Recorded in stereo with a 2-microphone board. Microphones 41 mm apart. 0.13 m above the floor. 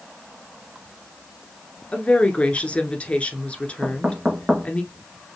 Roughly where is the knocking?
Right.